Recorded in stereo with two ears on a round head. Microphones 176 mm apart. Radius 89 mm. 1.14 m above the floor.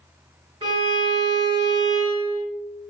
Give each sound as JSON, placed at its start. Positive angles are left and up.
{"t": 0.6, "sound": "a violin", "side_deg": -25, "distance_m": 1.3}